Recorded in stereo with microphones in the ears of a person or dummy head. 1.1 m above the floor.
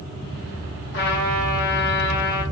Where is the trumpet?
55° left (ahead or behind), 1.0 m.